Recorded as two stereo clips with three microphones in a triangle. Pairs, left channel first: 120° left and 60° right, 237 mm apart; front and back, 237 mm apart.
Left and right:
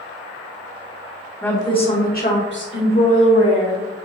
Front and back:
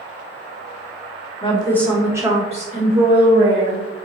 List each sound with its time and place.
1.4 s a woman speaking: 40° left, 1.2 m; by 3.9 s 145° left, 2.5 m